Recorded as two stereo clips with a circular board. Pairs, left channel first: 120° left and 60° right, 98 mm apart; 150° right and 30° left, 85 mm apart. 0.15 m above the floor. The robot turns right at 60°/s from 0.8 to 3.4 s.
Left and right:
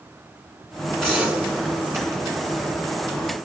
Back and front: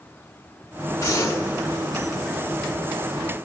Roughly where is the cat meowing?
I don't hear a cat meowing.